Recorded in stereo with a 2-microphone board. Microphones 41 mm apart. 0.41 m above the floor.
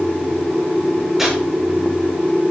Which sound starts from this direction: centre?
Tearing paper, at 1.2 s.